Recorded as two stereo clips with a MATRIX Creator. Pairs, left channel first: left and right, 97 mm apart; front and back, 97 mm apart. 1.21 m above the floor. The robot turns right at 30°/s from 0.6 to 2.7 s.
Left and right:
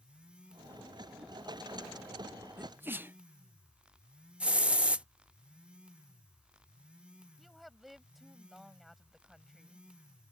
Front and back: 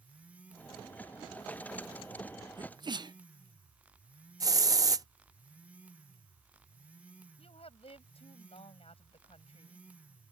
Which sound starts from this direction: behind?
A hiss, at 4.4 s.